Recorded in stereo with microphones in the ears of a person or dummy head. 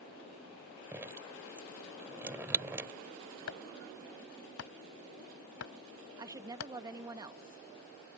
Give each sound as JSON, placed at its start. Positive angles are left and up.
{"t": 0.9, "sound": "dripping", "side_deg": -15}
{"t": 3.5, "sound": "chopping", "side_deg": 80}
{"t": 6.2, "sound": "a woman speaking", "side_deg": -10}